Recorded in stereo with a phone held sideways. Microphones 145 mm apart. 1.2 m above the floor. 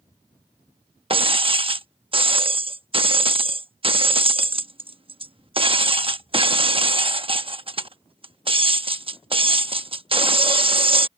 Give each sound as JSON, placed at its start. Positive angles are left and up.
{"t": 1.1, "sound": "breaking glass", "side_deg": -40}